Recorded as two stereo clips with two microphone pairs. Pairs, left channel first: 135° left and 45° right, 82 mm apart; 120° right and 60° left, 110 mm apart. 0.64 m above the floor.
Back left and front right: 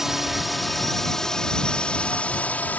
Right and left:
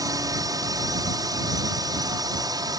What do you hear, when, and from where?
0.0 s a drone: 35° left; by 2.8 s 75° left